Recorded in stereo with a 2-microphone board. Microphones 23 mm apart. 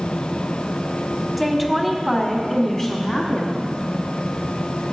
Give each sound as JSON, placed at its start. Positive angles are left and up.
{"t": 1.4, "sound": "a woman speaking", "side_deg": 0, "distance_m": 1.3}